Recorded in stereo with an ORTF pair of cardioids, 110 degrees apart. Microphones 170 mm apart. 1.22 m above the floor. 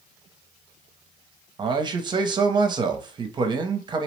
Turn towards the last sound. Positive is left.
turn(degrees=-30)